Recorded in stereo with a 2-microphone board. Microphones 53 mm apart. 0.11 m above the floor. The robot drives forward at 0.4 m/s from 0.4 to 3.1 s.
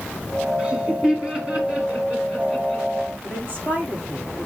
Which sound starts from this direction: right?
A woman speaking, at 3.2 s.